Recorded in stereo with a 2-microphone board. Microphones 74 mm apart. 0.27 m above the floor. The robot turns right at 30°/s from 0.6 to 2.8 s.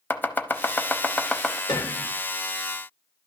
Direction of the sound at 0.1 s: 25° left (ahead or behind).